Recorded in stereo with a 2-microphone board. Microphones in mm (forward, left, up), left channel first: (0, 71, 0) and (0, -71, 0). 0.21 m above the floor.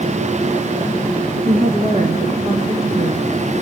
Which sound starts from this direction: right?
A woman speaking, at 1.4 s.